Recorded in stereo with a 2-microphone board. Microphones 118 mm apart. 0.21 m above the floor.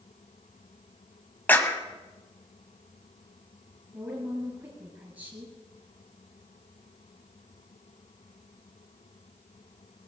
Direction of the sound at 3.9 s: 25° right (ahead or behind).